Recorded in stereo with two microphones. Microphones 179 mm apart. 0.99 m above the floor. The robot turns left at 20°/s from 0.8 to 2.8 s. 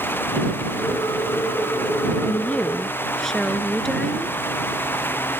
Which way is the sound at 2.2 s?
15° left (ahead or behind).